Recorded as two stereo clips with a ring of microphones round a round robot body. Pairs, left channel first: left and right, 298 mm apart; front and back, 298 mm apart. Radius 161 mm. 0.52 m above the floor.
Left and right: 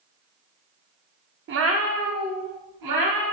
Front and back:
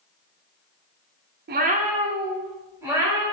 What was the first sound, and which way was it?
A cat meowing, 130° right.